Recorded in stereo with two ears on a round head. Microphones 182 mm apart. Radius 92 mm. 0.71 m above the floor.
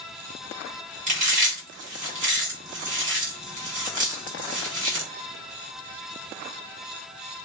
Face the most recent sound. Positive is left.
turn(degrees=-40)  # may be behind; listen again after turning